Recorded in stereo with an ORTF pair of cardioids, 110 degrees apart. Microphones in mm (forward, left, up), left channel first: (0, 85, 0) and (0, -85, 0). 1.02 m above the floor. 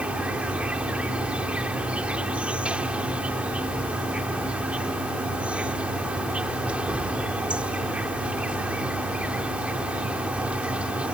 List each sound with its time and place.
0.0 s an insect: 5° right